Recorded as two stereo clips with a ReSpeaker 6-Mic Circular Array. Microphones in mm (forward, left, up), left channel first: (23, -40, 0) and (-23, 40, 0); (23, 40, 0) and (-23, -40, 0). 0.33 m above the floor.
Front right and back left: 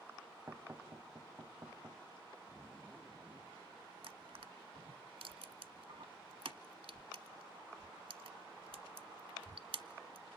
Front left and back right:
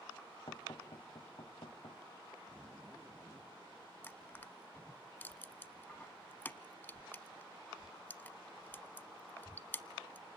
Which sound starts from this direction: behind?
A zipper, at 2.5 s.